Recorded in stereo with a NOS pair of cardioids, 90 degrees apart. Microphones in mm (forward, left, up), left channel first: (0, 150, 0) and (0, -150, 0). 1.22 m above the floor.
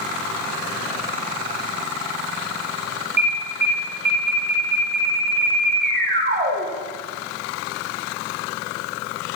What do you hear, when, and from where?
3.2 s an alarm: 35° right, 4.5 m